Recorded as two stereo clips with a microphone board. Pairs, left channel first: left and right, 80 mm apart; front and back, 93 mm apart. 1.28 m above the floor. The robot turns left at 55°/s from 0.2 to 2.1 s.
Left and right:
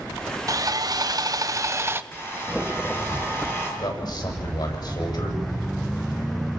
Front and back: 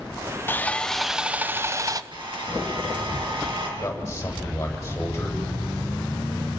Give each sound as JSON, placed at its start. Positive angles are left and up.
{"t": 0.5, "sound": "sawing", "azimuth_deg": -60, "distance_m": 0.8}
{"t": 2.1, "sound": "a hair dryer", "azimuth_deg": 150, "distance_m": 7.5}
{"t": 3.8, "sound": "a man speaking", "azimuth_deg": 65, "distance_m": 8.0}